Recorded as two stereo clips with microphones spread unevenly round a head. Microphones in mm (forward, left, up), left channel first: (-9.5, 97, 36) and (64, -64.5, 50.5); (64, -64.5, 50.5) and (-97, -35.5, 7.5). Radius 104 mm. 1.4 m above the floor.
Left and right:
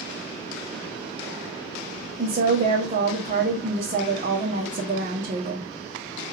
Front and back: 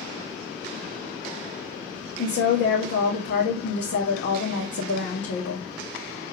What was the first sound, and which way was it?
A woman speaking, 20° right.